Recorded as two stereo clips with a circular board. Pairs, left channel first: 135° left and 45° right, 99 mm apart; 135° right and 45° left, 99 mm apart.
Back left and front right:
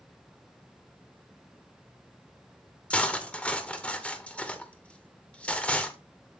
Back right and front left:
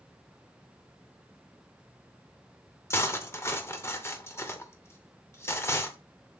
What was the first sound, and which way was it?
Cutlery clinking, 160° right.